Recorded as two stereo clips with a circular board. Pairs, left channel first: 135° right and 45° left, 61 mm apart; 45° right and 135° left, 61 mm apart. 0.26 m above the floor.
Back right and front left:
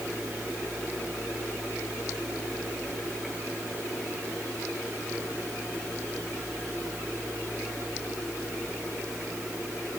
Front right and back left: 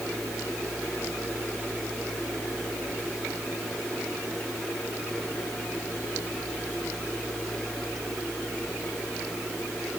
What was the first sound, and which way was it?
Only background noise.